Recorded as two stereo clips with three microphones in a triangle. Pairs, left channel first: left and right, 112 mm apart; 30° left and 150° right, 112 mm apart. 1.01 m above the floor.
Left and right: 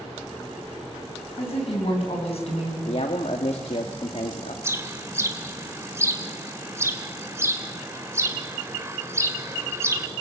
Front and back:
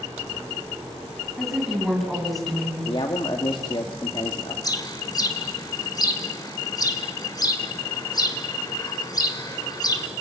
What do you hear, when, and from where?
1.4 s a woman speaking: 120° left, 7.5 m; by 2.8 s 115° left, 6.5 m
2.9 s a man speaking: 70° left, 1.9 m
4.6 s a bird: 25° right, 1.9 m